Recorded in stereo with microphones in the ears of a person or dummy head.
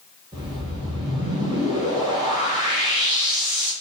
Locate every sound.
0.3 s a whoosh: 20° right (ahead or behind), 0.8 m